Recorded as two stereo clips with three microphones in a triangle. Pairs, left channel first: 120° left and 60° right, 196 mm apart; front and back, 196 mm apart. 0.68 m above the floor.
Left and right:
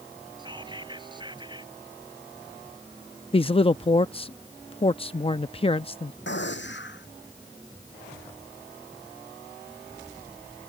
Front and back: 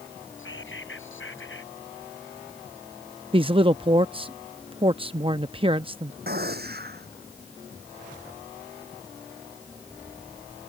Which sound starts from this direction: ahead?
Whispering, at 0.4 s.